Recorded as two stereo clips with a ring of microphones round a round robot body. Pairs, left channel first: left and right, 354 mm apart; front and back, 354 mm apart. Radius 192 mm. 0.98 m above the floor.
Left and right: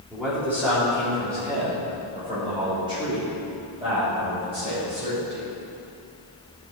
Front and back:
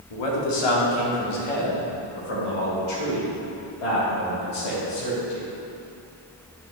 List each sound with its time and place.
0.1 s a man speaking: 5° right, 1.9 m; by 5.5 s 15° right, 5 m